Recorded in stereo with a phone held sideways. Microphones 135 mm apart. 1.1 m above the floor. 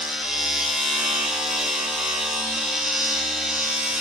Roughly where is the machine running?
Centre.